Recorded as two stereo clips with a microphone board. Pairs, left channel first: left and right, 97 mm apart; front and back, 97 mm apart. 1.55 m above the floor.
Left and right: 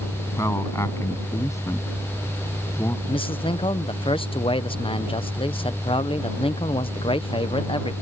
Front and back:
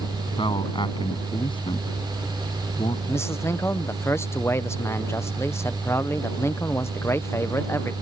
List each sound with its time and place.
0.3 s a man speaking: 30° left
3.1 s a man speaking: 60° left